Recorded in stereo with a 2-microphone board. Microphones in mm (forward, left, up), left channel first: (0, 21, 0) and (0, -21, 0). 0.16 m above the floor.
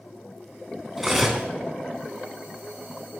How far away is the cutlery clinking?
About 0.8 m.